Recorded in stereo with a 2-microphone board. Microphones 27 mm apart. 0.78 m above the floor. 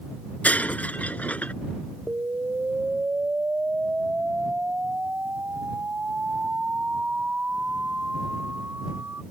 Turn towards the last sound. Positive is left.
turn(degrees=-70)  # may be behind; listen again after turning